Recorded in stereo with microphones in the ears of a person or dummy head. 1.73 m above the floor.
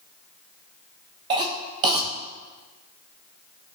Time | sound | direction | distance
1.3 | a cough | 20° right (ahead or behind) | 0.7 m